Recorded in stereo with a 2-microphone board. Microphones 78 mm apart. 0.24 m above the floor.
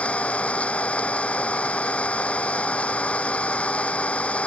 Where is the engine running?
15° left (ahead or behind).